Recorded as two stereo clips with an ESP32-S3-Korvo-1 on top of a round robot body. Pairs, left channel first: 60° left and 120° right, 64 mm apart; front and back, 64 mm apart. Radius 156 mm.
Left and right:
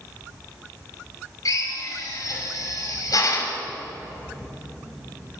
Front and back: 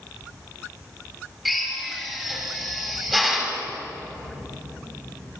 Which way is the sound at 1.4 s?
90° left.